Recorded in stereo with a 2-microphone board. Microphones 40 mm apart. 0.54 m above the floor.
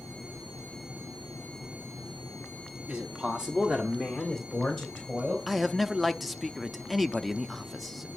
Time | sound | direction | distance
2.9 | a man speaking | 25° right (ahead or behind) | 1.3 m
5.5 | a man speaking | centre (ahead or behind) | 0.6 m